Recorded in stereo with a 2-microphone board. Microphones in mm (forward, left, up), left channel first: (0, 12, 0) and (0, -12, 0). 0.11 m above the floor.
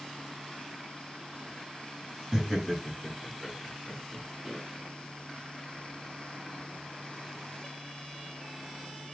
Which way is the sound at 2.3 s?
15° right (ahead or behind).